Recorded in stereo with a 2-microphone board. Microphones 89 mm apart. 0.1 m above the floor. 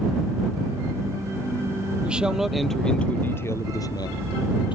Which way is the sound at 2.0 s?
10° right (ahead or behind).